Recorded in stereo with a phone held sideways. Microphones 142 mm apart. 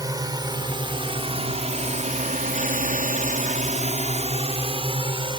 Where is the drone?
25° right (ahead or behind); by 5.4 s 35° right (ahead or behind).